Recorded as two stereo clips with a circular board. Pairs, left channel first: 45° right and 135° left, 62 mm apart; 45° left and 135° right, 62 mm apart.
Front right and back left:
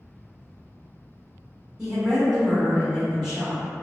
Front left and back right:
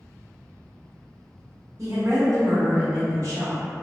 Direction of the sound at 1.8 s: 145° right.